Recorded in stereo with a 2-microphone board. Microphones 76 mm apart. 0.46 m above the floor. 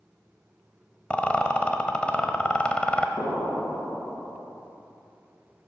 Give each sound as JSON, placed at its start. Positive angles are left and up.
{"t": 1.1, "sound": "a rattle", "side_deg": 15, "distance_m": 1.0}
{"t": 3.2, "sound": "an explosion", "side_deg": 55, "distance_m": 3.0}